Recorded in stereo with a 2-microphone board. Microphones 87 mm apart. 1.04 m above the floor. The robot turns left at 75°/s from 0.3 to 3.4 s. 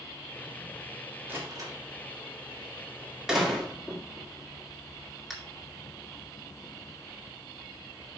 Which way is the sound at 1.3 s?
20° right (ahead or behind).